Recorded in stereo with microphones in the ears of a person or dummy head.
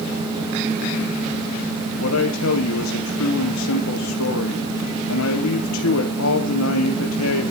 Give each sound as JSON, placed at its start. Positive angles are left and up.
{"t": 2.0, "sound": "a man speaking", "side_deg": 90, "distance_m": 1.4}